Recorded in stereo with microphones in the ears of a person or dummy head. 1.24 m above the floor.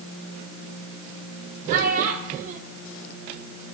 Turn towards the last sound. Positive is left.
turn(degrees=-45)  # may be behind; listen again after turning